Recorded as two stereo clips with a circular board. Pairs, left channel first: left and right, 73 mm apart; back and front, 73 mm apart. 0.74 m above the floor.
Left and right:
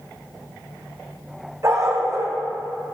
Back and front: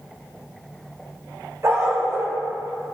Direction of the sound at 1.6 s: 45° right.